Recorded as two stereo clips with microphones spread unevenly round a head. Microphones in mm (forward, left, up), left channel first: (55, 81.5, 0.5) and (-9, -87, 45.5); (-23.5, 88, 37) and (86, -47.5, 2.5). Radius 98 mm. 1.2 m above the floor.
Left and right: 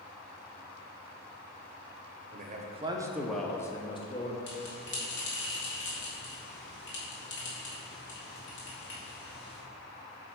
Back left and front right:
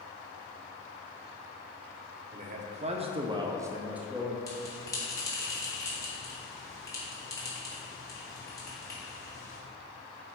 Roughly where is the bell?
Ahead left.